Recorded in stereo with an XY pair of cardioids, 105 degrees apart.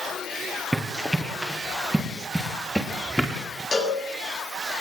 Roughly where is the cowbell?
Ahead left.